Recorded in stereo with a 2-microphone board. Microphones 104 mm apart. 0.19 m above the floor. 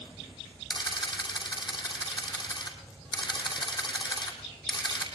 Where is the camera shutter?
45° left (ahead or behind), 2.5 m.